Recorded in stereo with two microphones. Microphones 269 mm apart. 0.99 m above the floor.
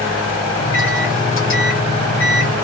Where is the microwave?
50° left (ahead or behind), 1.1 m.